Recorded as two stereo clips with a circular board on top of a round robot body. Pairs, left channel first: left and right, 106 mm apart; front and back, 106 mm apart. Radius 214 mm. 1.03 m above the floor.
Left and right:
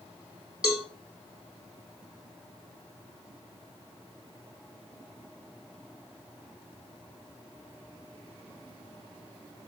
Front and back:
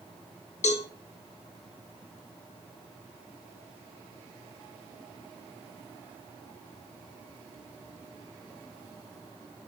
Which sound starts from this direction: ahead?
A cowbell, at 0.6 s.